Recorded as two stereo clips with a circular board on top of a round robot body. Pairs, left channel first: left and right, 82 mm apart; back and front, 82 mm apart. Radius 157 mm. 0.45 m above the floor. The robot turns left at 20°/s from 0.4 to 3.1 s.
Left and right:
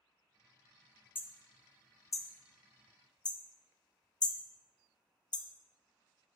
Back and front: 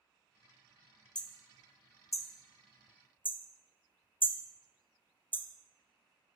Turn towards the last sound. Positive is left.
turn(degrees=115)